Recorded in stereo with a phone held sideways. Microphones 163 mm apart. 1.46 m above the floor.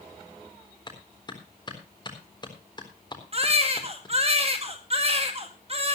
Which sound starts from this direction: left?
A clap, at 0.9 s.